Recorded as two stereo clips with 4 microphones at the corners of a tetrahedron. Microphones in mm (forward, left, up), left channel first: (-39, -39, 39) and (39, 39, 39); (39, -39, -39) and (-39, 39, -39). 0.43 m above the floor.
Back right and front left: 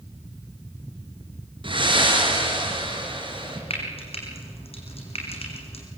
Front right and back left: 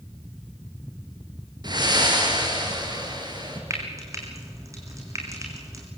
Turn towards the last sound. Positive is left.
turn(degrees=-165)